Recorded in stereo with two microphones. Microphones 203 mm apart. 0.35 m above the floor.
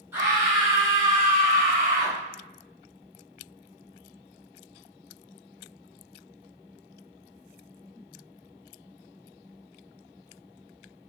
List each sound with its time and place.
0.1 s a scream: 15° right (ahead or behind), 1.7 m; by 2.2 s 35° right (ahead or behind), 1.4 m